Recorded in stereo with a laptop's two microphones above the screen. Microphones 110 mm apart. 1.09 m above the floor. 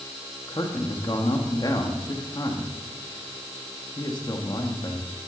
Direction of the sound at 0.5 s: 40° left (ahead or behind).